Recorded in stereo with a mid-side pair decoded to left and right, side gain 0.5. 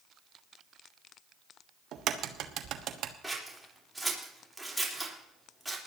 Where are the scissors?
5° right, 4 m.